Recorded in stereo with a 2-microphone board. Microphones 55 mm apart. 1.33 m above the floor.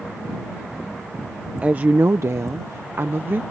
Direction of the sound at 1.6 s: 25° right (ahead or behind).